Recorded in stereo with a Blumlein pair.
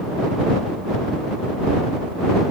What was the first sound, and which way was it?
Only background noise.